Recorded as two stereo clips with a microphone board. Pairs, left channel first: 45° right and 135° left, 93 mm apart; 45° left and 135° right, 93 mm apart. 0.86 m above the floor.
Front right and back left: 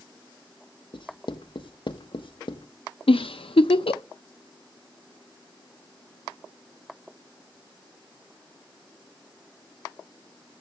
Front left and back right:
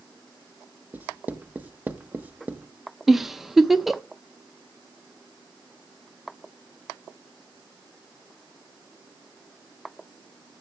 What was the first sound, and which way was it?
Writing, 65° right.